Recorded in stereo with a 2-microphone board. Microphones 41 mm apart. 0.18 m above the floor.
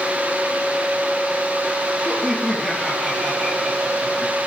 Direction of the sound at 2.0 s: Centre (ahead or behind).